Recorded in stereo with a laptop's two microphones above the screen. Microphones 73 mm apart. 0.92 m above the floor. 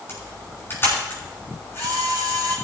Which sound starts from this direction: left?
A camera shutter, at 0.1 s.